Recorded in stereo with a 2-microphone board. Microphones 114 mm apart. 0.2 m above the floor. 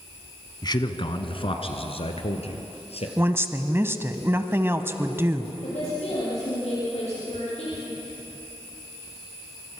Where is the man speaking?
40° left (ahead or behind), 1.2 m; by 3.1 s 70° left (ahead or behind), 3.5 m.